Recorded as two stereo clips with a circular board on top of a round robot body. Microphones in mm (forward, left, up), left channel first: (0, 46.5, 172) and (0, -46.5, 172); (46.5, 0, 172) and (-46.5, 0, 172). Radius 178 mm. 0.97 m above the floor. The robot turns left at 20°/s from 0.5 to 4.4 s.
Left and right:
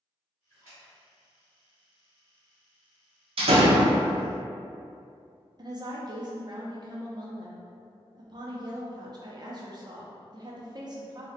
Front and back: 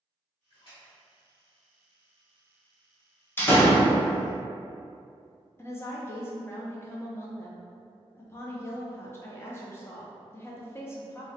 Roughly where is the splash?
Ahead right.